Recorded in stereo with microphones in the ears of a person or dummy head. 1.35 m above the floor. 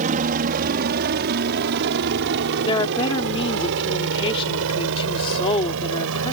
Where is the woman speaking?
30° left (ahead or behind).